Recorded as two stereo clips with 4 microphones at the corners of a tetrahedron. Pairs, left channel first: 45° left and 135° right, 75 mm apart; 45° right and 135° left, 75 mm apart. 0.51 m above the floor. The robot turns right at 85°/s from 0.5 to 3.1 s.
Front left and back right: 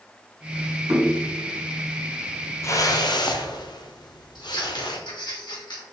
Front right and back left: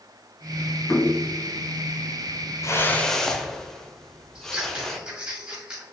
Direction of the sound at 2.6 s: 5° right.